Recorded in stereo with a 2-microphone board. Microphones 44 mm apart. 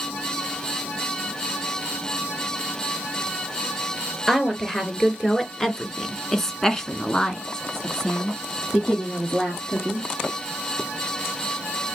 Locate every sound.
4.3 s a woman speaking: 5° left (ahead or behind), 2.0 m; by 10.1 s 10° left (ahead or behind), 2 m